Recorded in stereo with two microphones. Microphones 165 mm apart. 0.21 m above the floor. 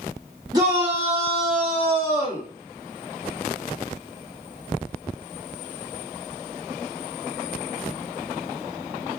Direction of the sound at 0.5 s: 25° right (ahead or behind).